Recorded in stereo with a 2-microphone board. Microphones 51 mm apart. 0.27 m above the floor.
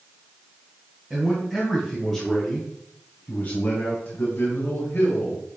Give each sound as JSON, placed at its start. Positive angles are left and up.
{"t": 1.1, "sound": "a man speaking", "side_deg": -10, "distance_m": 1.9}